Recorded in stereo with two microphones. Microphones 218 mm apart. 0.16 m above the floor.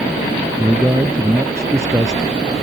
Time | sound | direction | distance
0.6 | a man speaking | 15° right (ahead or behind) | ?